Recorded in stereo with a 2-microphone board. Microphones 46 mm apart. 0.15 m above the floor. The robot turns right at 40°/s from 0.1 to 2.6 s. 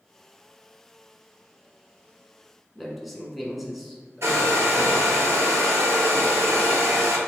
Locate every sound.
2.8 s a man speaking: centre (ahead or behind), 1.1 m
4.2 s a hair dryer: 65° right (ahead or behind), 0.9 m